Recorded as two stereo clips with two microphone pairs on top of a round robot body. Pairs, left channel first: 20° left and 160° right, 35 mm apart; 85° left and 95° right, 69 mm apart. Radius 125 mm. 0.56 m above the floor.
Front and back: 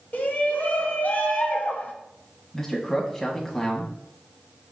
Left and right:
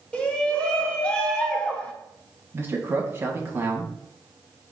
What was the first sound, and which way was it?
A shout, 15° left.